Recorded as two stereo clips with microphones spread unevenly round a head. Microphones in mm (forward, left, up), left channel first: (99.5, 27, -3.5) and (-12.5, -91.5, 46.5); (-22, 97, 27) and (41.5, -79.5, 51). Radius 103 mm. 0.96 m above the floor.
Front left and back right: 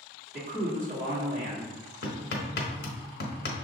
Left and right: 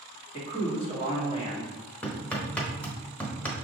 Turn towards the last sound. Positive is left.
turn(degrees=25)